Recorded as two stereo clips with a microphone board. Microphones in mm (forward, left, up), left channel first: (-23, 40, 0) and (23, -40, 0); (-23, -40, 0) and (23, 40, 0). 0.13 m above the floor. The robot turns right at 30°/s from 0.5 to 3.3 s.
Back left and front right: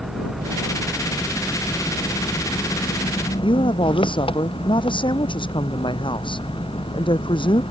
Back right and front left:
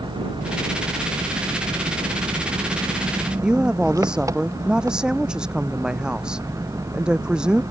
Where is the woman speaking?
140° left.